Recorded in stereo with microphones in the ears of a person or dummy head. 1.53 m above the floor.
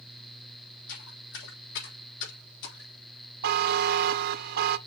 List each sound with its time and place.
0.9 s footsteps: 70° left (ahead or behind), 4 m; by 2.9 s 60° left (ahead or behind), 3.5 m
3.4 s a buzzer: 55° right (ahead or behind), 0.6 m